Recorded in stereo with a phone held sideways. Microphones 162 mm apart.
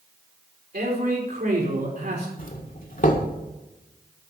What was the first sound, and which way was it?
A man speaking, 75° right (ahead or behind).